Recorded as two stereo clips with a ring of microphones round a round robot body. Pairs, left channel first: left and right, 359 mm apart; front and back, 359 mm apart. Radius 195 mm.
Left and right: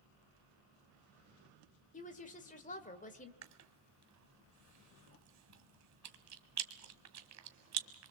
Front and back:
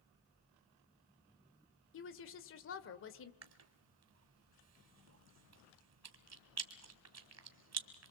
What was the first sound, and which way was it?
A woman speaking, 30° left.